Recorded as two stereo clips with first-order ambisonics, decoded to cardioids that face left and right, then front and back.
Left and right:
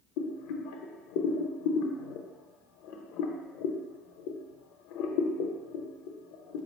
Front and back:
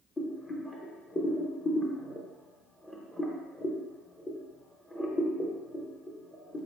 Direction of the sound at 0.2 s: 85° left.